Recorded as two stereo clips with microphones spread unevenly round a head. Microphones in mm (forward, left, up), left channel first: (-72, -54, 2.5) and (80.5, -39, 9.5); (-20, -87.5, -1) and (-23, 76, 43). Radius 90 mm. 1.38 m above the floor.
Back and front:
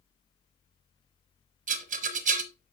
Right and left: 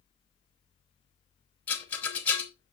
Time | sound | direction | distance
1.7 | a rattle | 5° left | 0.9 m